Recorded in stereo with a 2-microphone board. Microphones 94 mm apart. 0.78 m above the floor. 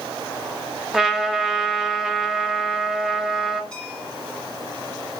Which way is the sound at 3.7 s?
10° left (ahead or behind).